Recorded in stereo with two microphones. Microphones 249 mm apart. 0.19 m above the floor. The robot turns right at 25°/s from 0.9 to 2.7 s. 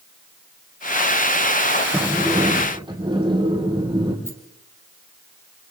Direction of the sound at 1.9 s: Centre (ahead or behind).